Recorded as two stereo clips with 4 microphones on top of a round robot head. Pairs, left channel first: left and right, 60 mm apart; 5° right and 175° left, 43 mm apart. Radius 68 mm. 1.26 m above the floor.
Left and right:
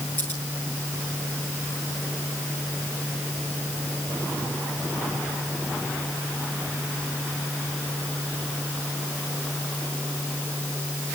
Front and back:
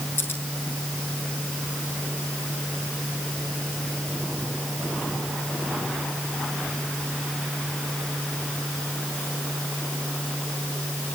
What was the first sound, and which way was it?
Scissors, 25° left.